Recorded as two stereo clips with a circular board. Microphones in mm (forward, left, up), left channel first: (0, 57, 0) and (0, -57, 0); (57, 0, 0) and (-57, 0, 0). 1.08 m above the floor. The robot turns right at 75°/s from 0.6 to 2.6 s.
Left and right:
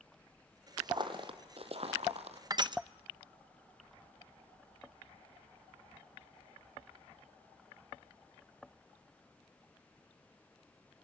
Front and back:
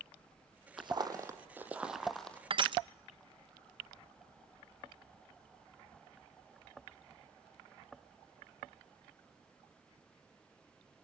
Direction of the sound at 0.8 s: 140° right.